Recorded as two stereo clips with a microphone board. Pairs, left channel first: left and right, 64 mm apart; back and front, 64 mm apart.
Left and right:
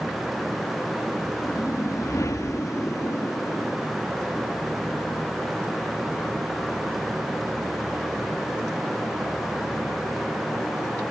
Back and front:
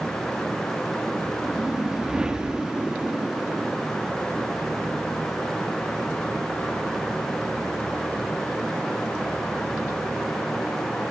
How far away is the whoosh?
About 1.7 m.